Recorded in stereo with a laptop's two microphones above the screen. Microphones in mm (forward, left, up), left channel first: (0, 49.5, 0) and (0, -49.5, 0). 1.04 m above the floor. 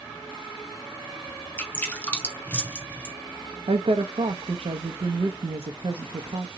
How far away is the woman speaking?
About 0.6 m.